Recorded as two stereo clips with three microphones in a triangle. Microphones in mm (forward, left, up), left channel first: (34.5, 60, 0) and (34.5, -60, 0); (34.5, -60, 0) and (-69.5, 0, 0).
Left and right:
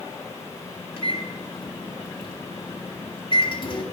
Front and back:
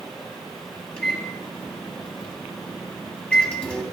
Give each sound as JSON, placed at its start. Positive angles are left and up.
{"t": 1.0, "sound": "a microwave", "azimuth_deg": 50, "distance_m": 1.9}